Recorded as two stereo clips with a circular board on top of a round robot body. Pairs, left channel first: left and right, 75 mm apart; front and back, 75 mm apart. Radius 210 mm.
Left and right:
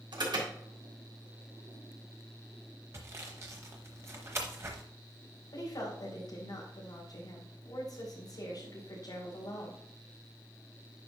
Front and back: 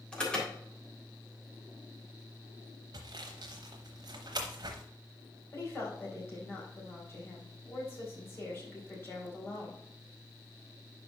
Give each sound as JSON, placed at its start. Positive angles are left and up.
{"t": 0.1, "sound": "an alarm", "azimuth_deg": -80, "distance_m": 3.5}
{"t": 2.9, "sound": "sawing", "azimuth_deg": -145, "distance_m": 0.8}
{"t": 5.5, "sound": "a woman speaking", "azimuth_deg": 60, "distance_m": 4.0}